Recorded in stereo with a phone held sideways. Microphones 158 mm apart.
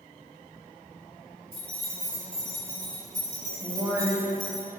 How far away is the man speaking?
About 0.6 m.